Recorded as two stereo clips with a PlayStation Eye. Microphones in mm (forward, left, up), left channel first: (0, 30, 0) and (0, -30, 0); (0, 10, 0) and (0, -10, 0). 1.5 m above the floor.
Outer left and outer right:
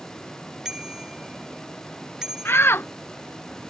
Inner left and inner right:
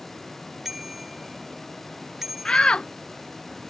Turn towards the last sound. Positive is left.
turn(degrees=40)  # may be behind; listen again after turning